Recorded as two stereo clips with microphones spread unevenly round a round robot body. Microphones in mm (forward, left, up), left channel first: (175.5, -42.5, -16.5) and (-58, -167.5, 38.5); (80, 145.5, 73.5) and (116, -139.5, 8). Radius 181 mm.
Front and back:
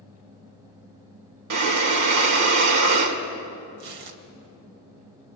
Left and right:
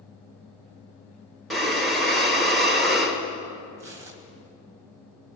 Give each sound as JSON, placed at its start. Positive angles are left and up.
{"t": 1.5, "sound": "breathing", "azimuth_deg": -165, "distance_m": 1.4}
{"t": 3.8, "sound": "tearing paper", "azimuth_deg": -160, "distance_m": 1.4}